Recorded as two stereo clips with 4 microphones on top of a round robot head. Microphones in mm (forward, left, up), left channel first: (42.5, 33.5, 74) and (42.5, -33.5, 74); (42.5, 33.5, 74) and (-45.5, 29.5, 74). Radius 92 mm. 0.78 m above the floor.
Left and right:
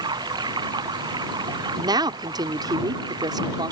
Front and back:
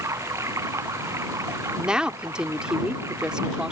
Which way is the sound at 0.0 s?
115° right.